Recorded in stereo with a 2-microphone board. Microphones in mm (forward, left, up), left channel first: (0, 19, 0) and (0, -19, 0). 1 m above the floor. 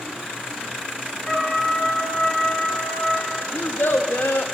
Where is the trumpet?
10° left (ahead or behind), 5.5 m.